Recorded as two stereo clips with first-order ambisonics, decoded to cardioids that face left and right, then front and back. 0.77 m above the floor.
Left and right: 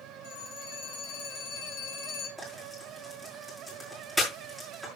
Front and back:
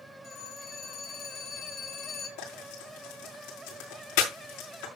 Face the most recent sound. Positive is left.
turn(degrees=10)